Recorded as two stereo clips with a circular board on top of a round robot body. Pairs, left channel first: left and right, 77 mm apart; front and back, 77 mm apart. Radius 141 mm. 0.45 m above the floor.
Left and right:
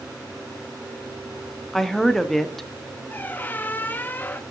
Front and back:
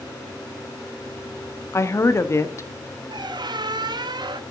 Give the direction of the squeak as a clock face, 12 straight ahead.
7 o'clock.